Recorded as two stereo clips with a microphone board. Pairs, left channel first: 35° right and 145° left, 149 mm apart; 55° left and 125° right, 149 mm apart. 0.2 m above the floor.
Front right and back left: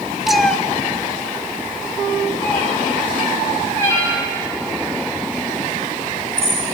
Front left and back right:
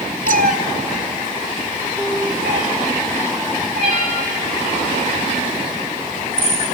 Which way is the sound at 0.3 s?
125° right.